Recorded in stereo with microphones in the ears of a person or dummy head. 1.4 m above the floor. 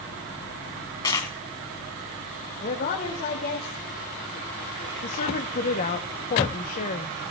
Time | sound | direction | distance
1.0 | a dropped coin | 20° left (ahead or behind) | 2 m
2.6 | a woman speaking | 45° left (ahead or behind) | 2.5 m
5.0 | a woman speaking | 40° left (ahead or behind) | 1.0 m